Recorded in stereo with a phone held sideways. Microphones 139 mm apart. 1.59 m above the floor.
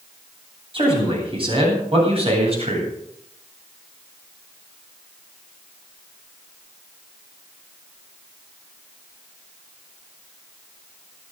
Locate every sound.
0.7 s a man speaking: 40° right (ahead or behind), 9.5 m; by 2.9 s 45° right (ahead or behind), 8.5 m